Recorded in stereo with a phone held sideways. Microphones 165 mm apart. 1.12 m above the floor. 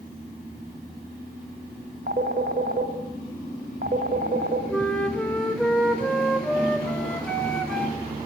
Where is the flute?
5° left (ahead or behind), 2.5 m.